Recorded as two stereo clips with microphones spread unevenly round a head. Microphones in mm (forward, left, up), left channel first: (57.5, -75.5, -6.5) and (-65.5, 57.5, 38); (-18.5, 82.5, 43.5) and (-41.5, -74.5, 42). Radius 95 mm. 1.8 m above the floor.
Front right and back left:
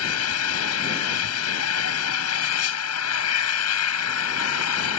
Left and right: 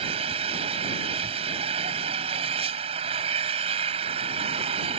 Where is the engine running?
40° right.